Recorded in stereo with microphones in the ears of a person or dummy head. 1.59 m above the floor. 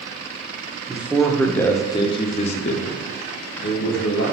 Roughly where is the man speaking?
Centre.